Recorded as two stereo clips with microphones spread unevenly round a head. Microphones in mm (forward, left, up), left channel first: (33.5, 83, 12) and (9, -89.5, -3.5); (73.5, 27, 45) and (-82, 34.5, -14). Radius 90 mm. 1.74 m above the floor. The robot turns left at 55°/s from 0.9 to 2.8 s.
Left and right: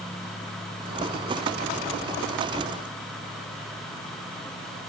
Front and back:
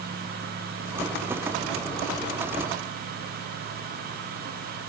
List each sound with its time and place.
Only background noise.